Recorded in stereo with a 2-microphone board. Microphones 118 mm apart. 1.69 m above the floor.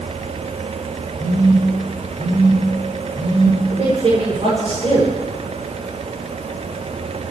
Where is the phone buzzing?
45° right (ahead or behind), 9 m.